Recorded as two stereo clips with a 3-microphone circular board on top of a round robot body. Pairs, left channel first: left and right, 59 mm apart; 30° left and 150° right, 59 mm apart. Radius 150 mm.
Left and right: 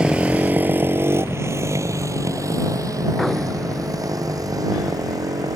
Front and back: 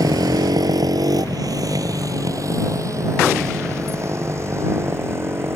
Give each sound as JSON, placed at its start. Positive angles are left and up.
{"t": 0.0, "sound": "a motorcycle", "azimuth_deg": -165}